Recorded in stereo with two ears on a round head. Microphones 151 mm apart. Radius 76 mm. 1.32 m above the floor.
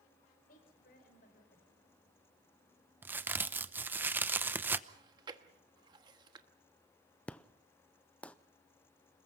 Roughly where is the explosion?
Centre.